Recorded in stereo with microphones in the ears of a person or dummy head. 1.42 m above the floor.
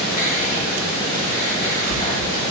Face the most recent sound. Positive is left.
turn(degrees=40)  # may be behind; listen again after turning